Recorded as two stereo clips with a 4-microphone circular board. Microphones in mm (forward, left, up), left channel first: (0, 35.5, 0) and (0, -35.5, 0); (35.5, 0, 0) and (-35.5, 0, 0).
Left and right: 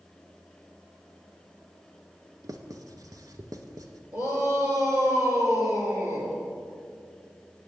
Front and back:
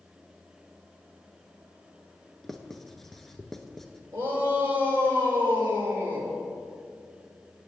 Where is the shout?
120° right, 3 m.